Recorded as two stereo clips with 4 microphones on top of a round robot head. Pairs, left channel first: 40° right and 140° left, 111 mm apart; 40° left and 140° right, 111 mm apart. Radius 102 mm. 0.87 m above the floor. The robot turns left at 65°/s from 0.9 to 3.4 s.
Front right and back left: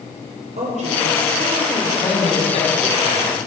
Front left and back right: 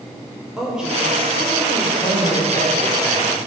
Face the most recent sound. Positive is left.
turn(degrees=-70)